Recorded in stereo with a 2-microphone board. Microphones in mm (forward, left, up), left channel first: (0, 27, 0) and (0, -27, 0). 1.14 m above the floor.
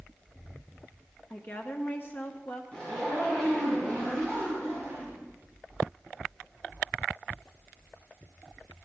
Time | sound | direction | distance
1.3 | a woman speaking | 40° left (ahead or behind) | 0.7 m
2.7 | a zipper | 15° left (ahead or behind) | 5.5 m